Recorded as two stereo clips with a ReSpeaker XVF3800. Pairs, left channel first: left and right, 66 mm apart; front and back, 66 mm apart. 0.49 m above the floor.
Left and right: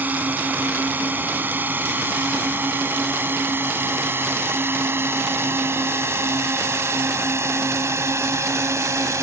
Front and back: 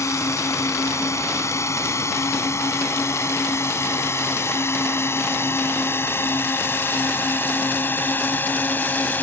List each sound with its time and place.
0.0 s a drone: 30° right; by 9.2 s 60° right